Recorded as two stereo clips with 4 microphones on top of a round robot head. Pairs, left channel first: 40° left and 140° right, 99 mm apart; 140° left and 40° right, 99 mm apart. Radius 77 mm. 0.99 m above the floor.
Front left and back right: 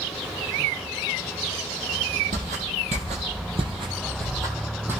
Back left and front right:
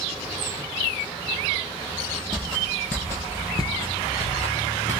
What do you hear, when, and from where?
2.3 s footsteps: 135° right, 1.9 m; by 5.0 s 155° left, 2 m